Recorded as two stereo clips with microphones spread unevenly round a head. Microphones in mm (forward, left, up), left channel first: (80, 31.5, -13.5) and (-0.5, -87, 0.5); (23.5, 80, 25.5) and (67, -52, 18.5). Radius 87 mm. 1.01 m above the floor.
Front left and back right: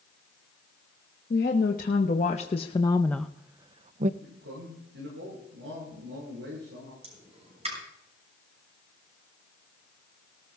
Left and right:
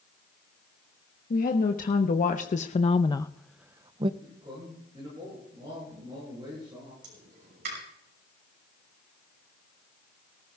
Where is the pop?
75° right, 6.5 m.